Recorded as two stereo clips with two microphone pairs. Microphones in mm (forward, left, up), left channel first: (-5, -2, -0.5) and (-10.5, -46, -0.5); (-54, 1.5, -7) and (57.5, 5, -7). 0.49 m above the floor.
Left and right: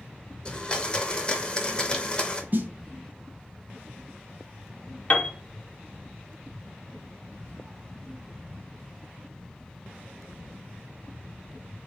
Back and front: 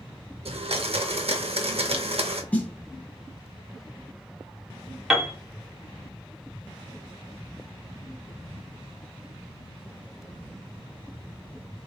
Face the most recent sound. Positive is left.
turn(degrees=85)